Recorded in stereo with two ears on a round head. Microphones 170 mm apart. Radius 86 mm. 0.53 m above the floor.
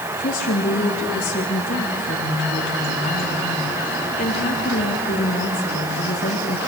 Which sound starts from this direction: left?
A woman speaking, at 0.2 s.